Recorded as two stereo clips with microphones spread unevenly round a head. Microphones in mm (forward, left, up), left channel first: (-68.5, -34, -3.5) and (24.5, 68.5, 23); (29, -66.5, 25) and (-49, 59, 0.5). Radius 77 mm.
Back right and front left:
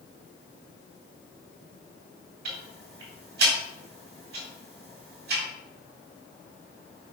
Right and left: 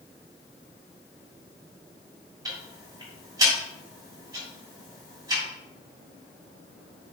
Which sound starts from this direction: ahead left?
Ticking, at 2.5 s.